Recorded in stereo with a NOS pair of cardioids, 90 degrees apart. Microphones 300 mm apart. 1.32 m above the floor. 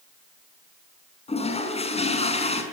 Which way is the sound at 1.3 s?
20° left.